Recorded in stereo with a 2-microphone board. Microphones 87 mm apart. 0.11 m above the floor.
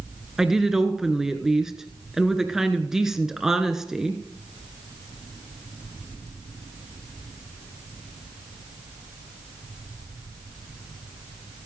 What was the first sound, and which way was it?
A woman speaking, 5° right (ahead or behind).